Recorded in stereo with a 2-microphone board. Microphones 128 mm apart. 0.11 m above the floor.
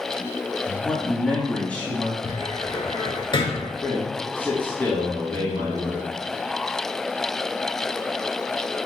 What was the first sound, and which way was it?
A man speaking, 10° left (ahead or behind).